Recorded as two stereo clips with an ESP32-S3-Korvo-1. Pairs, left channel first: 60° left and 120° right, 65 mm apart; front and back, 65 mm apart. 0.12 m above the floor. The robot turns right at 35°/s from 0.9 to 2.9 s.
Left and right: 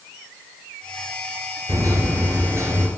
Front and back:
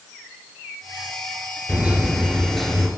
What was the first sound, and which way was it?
A microwave, 115° right.